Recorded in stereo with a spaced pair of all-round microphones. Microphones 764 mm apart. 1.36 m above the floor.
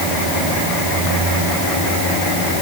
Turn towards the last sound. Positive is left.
No sound to turn to.